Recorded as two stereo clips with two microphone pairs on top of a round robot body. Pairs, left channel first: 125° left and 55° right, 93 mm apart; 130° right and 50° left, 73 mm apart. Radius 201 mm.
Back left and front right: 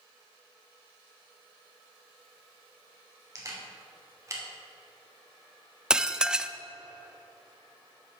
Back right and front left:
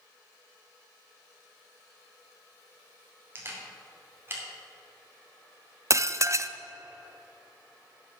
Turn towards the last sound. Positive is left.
turn(degrees=30)